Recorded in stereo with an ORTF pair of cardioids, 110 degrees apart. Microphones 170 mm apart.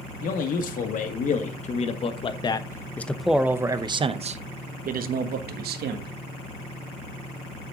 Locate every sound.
0.2 s a man speaking: 55° left, 2 m; by 6.1 s 70° right, 1.9 m